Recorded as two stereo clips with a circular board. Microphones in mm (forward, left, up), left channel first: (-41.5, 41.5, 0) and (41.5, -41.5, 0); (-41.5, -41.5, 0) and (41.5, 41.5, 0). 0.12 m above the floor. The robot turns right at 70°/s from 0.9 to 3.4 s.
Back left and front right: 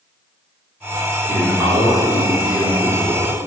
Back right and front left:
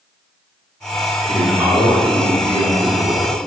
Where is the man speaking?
35° right, 1.9 m; by 3.4 s 110° left, 1.9 m.